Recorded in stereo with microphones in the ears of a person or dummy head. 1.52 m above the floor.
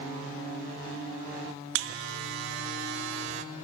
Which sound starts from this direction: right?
A buzzer, at 1.8 s.